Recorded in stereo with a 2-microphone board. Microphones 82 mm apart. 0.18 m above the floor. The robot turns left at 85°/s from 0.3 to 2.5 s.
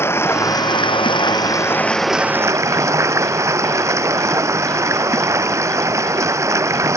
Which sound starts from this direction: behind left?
Running water, at 0.0 s.